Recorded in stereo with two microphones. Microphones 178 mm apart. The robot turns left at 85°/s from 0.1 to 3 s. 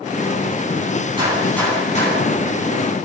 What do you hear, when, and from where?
1.2 s a gunshot: 155° right, 10 m; by 2.3 s 110° left, 10 m